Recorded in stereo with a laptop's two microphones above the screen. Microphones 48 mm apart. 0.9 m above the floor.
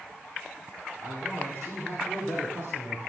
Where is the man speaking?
65° right (ahead or behind), 9 m; by 3.0 s 80° right, 10 m.